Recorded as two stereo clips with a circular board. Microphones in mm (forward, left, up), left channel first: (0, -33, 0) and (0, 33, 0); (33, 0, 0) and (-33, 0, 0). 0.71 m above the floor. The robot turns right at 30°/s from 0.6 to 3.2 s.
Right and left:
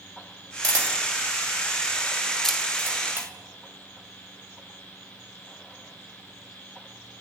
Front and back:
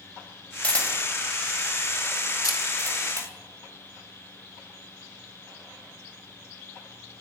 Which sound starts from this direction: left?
A camera shutter, at 0.6 s.